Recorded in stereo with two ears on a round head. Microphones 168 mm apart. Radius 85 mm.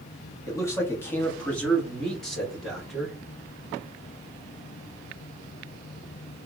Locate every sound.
0.5 s a man speaking: 20° left (ahead or behind), 1.2 m; by 3.2 s centre (ahead or behind), 2.5 m